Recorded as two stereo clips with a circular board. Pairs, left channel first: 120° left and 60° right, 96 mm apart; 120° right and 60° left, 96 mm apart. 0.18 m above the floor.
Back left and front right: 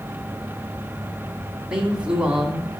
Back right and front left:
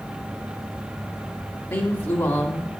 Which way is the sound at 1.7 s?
125° right.